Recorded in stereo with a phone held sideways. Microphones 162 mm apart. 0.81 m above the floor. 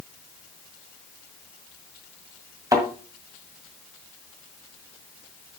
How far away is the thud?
About 2 m.